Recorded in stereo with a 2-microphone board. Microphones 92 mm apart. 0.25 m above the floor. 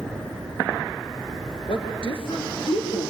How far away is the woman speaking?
About 3.5 m.